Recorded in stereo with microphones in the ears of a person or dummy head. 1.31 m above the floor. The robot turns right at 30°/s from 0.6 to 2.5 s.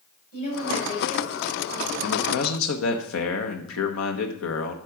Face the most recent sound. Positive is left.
turn(degrees=80)